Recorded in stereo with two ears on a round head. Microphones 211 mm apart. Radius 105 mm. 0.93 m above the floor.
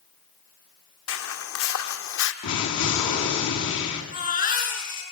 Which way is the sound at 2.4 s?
85° left.